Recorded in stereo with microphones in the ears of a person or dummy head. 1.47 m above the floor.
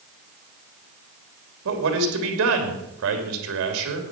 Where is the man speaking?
70° right (ahead or behind), 2.5 m.